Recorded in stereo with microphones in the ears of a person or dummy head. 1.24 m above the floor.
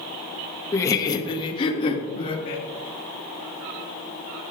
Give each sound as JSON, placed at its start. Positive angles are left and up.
{"t": 0.7, "sound": "laughter", "side_deg": 15, "distance_m": 0.7}